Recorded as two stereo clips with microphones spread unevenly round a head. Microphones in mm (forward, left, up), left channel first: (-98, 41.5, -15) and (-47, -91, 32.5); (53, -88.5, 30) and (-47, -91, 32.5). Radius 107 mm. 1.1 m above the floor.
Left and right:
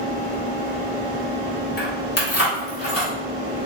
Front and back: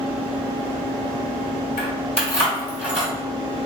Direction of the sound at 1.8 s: 60° left.